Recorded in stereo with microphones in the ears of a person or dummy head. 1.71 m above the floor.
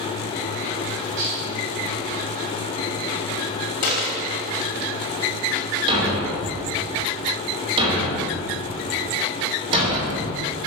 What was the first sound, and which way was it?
Dishes clattering, 75° right (ahead or behind).